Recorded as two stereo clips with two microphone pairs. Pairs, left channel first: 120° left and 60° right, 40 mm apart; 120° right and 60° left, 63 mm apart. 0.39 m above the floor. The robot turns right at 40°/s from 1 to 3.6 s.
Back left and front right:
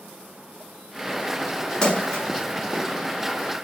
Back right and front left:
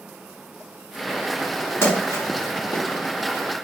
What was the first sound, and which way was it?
A splash, 170° right.